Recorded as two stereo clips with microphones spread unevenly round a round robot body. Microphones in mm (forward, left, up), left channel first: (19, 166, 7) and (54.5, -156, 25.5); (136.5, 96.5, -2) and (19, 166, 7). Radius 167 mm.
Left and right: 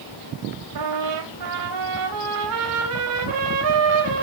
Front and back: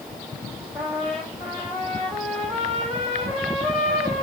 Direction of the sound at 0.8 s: 120° right.